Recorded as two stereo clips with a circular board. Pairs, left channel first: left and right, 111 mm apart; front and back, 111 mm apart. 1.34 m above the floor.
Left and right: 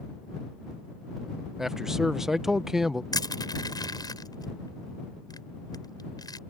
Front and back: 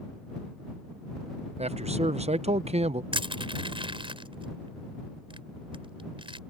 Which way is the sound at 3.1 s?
140° left.